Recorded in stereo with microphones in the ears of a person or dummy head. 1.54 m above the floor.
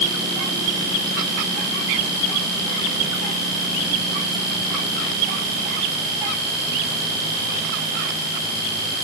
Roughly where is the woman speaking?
I don't hear a woman speaking.